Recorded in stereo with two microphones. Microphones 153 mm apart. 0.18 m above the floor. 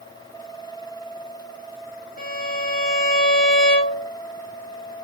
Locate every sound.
2.2 s a violin: 75° left (ahead or behind), 5 m